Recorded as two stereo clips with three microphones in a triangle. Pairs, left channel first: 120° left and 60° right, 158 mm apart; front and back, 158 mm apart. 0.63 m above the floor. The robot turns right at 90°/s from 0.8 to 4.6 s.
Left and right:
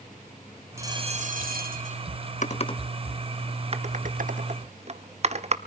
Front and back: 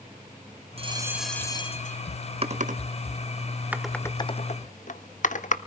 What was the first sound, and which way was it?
A bell, 130° right.